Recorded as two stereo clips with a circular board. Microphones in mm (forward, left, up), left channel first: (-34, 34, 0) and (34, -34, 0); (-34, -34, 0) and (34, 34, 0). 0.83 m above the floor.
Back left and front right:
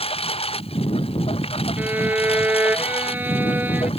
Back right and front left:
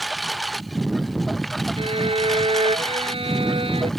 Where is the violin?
25° left.